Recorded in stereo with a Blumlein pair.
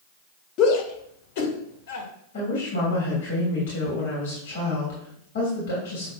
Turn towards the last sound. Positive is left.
turn(degrees=55)